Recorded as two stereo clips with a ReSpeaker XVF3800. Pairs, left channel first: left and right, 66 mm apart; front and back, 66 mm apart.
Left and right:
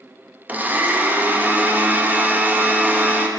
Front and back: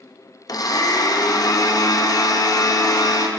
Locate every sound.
0.5 s a blender: 25° right, 0.7 m